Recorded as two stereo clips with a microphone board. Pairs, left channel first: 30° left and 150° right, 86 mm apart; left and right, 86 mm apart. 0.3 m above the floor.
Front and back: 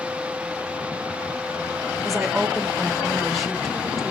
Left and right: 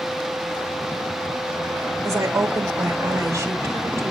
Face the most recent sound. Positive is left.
turn(degrees=-60)